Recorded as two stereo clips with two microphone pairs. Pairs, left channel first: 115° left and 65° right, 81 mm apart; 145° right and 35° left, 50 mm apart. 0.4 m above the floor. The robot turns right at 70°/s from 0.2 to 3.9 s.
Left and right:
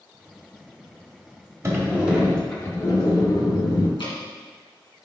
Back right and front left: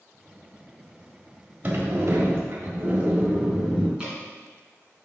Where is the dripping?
105° left, 2 m.